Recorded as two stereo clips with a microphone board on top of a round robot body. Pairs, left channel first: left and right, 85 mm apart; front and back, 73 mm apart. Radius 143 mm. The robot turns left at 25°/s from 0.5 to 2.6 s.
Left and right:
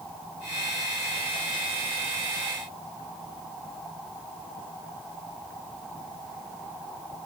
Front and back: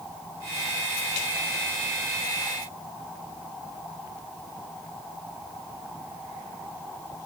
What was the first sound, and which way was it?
Only background noise.